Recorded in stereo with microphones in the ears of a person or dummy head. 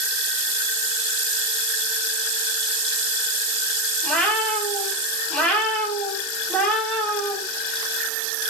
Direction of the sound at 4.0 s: 5° left (ahead or behind).